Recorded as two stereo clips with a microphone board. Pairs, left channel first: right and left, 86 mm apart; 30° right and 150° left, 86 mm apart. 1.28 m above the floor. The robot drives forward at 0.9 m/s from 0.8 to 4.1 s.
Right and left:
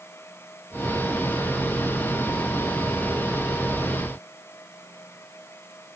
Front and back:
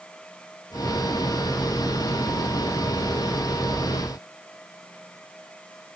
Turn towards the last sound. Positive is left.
No sound to turn to.